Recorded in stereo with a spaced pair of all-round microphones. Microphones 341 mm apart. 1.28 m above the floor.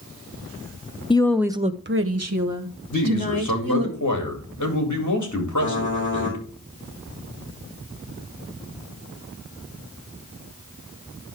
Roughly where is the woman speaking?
Centre.